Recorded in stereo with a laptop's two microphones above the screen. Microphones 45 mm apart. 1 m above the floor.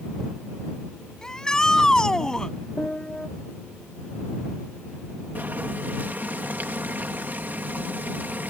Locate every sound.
1.2 s a shout: 15° left (ahead or behind)
2.8 s a piano: 20° left (ahead or behind)
5.3 s boiling: 45° right (ahead or behind)